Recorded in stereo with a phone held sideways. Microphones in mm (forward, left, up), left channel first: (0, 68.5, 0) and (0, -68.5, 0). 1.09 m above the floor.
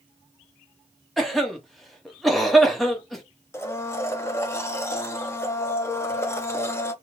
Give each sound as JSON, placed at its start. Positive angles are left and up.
{"t": 1.2, "sound": "a cough", "side_deg": 0, "distance_m": 0.9}
{"t": 3.5, "sound": "a blender", "side_deg": 20, "distance_m": 0.6}